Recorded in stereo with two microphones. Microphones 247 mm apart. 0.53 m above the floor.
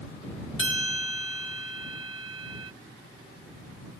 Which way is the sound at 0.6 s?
55° left (ahead or behind).